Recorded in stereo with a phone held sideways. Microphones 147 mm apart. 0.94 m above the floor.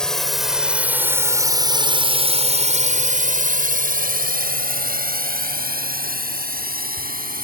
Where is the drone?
5° left (ahead or behind); by 7.4 s 75° right (ahead or behind).